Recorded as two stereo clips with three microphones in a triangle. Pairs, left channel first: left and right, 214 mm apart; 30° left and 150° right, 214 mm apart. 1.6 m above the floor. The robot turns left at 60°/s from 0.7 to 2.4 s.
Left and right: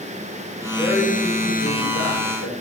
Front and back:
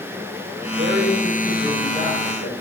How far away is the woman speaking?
About 6 m.